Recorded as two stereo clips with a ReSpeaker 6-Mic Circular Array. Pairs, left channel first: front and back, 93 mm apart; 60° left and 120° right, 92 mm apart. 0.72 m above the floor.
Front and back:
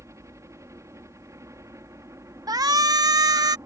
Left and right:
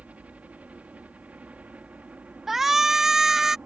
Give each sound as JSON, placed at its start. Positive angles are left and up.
{"t": 0.0, "sound": "a helicopter", "azimuth_deg": 180}
{"t": 2.5, "sound": "a shout", "azimuth_deg": 155}